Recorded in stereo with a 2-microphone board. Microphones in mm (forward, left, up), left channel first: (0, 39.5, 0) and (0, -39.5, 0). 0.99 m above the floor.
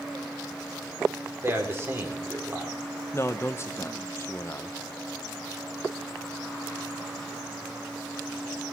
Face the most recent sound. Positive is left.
turn(degrees=35)  # may be behind; listen again after turning